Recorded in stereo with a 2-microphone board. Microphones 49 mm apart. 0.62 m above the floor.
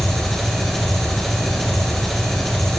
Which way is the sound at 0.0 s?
5° left (ahead or behind).